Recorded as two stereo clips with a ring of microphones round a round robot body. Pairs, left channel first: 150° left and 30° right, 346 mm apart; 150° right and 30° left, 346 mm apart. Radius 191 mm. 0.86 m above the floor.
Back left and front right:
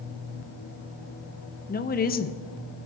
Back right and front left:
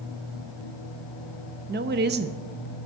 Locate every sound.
1.7 s a woman speaking: 90° left, 0.7 m